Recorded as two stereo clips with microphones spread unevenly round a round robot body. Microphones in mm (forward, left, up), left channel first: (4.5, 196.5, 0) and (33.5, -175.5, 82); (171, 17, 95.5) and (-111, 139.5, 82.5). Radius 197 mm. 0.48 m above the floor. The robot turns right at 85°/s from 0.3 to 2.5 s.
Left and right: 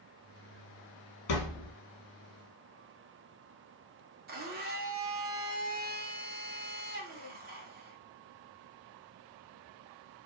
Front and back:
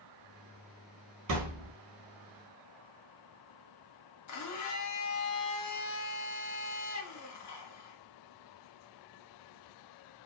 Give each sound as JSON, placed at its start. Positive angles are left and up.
{"t": 1.3, "sound": "a thud", "azimuth_deg": 120, "distance_m": 1.2}
{"t": 4.3, "sound": "a blender", "azimuth_deg": -15, "distance_m": 0.8}